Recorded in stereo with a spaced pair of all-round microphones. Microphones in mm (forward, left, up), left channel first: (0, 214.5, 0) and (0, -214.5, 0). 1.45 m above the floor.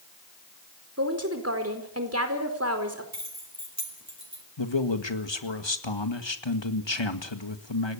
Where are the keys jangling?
40° right (ahead or behind), 5 m.